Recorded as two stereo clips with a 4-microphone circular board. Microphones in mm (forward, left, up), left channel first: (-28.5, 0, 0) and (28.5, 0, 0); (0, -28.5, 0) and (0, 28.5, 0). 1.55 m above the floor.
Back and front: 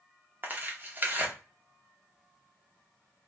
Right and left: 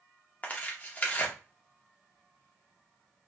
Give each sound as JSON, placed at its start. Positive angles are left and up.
{"t": 0.4, "sound": "tearing paper", "azimuth_deg": -40, "distance_m": 0.7}